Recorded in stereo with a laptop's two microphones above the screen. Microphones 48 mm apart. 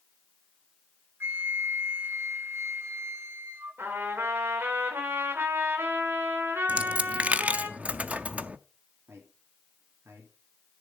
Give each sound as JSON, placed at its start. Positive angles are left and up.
{"t": 1.2, "sound": "a flute", "side_deg": -60, "distance_m": 1.0}
{"t": 3.8, "sound": "a trumpet", "side_deg": -55, "distance_m": 2.5}
{"t": 6.7, "sound": "a dropped coin", "side_deg": -30, "distance_m": 0.6}
{"t": 9.1, "sound": "a man speaking", "side_deg": -75, "distance_m": 3.0}